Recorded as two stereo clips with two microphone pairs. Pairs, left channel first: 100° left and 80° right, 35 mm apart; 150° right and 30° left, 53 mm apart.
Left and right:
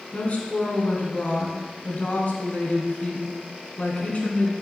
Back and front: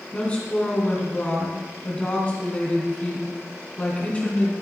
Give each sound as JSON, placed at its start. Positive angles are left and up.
{"t": 0.1, "sound": "a woman speaking", "azimuth_deg": 145, "distance_m": 2.5}